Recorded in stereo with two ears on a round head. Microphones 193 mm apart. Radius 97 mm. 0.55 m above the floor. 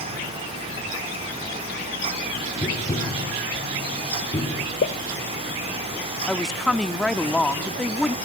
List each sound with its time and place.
2.6 s tapping: 20° left (ahead or behind), 4 m
4.8 s a pop: 50° left (ahead or behind), 1.0 m
6.3 s a woman speaking: centre (ahead or behind), 0.8 m